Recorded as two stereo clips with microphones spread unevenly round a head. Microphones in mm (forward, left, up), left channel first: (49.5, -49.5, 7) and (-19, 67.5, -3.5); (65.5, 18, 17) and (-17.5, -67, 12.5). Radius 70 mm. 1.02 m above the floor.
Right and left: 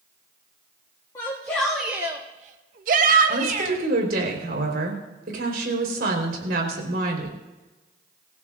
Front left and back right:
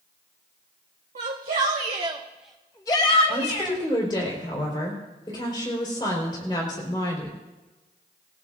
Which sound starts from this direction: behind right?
A shout, at 1.1 s.